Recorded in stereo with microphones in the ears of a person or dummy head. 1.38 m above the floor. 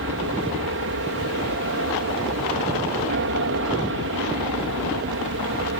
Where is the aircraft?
60° right (ahead or behind).